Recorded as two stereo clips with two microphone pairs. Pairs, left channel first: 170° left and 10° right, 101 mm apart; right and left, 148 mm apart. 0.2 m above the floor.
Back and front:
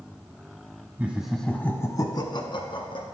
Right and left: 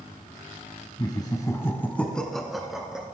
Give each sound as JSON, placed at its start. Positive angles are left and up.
{"t": 1.0, "sound": "laughter", "azimuth_deg": -60, "distance_m": 1.2}